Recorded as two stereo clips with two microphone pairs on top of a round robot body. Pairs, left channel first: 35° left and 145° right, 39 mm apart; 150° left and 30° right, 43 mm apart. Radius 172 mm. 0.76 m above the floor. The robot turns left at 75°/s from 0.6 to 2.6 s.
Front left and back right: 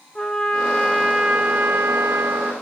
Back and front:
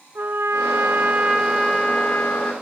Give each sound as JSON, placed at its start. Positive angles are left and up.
{"t": 0.1, "sound": "a trumpet", "azimuth_deg": -35, "distance_m": 0.9}